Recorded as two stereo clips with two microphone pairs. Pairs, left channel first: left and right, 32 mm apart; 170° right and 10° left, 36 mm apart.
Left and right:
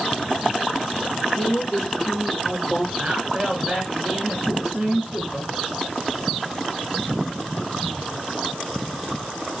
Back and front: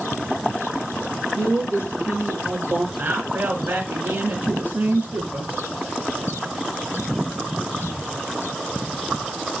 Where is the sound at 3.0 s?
15° right, 3.5 m.